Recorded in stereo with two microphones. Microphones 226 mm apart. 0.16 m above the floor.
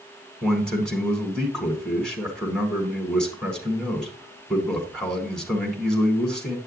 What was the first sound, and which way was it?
A man speaking, 5° left (ahead or behind).